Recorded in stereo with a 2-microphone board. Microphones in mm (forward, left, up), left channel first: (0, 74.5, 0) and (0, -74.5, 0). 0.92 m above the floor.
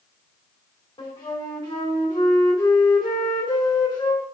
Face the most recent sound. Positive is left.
turn(degrees=30)  # may be behind; listen again after turning